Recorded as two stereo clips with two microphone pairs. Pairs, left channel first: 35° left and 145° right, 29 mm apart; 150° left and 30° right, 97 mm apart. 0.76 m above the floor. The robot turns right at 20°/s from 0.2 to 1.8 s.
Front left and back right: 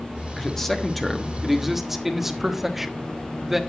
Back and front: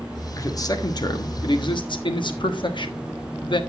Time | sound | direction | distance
0.4 | a man speaking | 105° left | 1.3 m